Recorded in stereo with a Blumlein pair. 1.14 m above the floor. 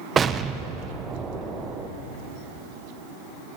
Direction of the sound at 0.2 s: 20° right.